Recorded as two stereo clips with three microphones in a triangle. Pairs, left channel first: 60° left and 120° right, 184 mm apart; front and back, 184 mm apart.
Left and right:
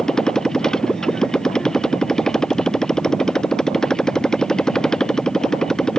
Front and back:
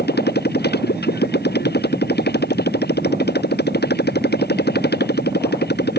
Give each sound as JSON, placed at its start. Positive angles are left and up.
{"t": 0.0, "sound": "a motorcycle", "azimuth_deg": -25}